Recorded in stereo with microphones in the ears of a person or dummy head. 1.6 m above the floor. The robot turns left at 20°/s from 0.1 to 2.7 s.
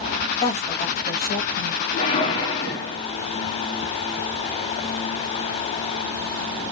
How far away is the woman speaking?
About 0.7 m.